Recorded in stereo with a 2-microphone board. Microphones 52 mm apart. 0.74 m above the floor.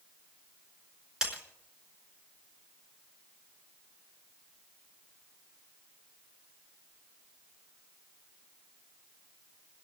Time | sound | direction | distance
1.2 | breaking glass | 15° right (ahead or behind) | 4.5 m